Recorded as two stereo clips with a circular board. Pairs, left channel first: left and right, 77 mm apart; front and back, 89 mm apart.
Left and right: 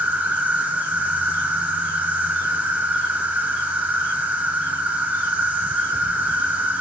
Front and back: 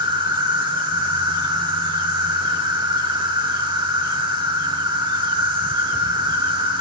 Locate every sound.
0.0 s an insect: 160° right, 0.9 m